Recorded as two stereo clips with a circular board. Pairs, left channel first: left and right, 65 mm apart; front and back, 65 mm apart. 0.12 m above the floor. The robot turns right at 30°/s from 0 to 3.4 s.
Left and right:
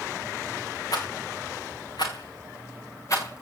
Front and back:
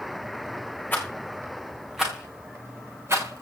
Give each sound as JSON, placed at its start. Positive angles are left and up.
{"t": 0.9, "sound": "a rattle", "azimuth_deg": 60, "distance_m": 4.5}